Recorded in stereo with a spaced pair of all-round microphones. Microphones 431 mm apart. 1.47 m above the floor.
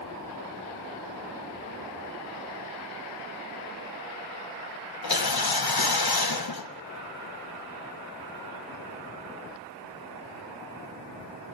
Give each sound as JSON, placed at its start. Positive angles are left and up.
{"t": 5.0, "sound": "a whoosh", "side_deg": 60, "distance_m": 1.0}